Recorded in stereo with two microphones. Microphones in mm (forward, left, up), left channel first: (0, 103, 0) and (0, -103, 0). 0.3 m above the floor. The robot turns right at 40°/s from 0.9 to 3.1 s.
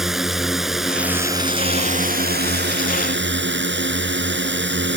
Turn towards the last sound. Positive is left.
turn(degrees=-90)